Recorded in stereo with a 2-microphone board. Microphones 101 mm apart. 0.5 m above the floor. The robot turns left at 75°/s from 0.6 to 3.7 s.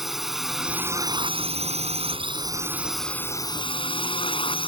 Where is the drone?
5° right; by 4.7 s 125° left.